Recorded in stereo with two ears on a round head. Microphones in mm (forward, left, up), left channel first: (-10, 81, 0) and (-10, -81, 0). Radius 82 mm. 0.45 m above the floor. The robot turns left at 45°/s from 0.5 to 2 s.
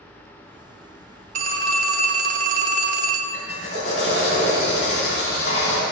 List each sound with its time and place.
1.4 s a phone ringing: 45° right (ahead or behind), 0.5 m; by 3.2 s 50° right (ahead or behind), 0.5 m
3.3 s a drill: 40° left (ahead or behind), 1.8 m